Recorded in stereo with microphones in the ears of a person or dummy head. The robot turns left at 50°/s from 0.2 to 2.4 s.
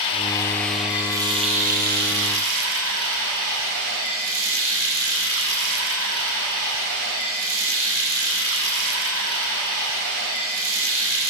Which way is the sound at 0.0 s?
30° left.